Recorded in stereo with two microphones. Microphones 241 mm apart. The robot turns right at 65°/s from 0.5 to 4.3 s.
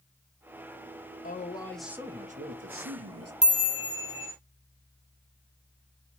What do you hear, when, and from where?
1.2 s a man speaking: 145° left, 1.0 m; by 3.3 s 80° right, 1.0 m
3.4 s a chime: 145° right, 1.1 m; by 4.3 s 85° right, 1.1 m